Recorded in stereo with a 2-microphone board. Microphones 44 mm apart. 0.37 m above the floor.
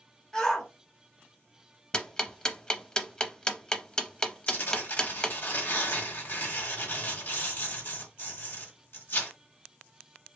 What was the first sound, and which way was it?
A shout, 15° left (ahead or behind).